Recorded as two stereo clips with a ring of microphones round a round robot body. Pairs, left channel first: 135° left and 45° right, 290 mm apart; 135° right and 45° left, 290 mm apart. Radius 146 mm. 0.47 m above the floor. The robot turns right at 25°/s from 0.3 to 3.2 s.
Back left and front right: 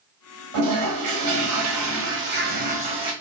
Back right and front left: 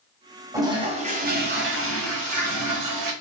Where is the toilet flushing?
35° right, 1.2 m; by 3.1 s 30° left, 1.2 m.